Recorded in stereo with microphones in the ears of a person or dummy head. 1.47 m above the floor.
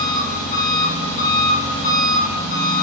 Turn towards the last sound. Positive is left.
turn(degrees=40)  # may be behind; listen again after turning